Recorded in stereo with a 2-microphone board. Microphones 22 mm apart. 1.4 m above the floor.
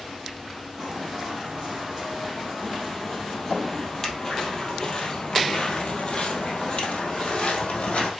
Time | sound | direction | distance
0.8 | footsteps | 5° right (ahead or behind) | 3.5 m